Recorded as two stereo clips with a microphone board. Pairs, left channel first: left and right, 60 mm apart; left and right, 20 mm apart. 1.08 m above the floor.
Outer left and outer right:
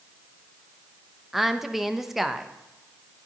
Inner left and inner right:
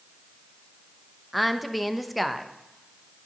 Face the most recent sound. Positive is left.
turn(degrees=-5)  # may be behind; listen again after turning